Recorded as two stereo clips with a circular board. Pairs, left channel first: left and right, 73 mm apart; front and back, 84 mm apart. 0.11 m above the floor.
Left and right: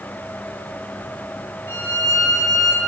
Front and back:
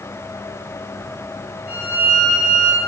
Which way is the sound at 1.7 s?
120° left.